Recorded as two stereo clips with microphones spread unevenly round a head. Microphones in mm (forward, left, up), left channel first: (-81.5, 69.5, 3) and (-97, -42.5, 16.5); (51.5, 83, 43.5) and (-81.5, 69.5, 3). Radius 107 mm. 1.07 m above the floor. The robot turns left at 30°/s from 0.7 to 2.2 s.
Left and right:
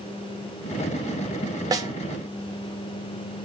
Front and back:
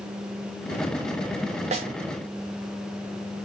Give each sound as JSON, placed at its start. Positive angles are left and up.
{"t": 1.7, "sound": "a snare drum", "azimuth_deg": -155, "distance_m": 0.9}